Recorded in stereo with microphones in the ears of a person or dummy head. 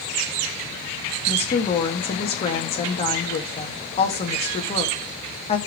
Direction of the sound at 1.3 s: 35° left (ahead or behind).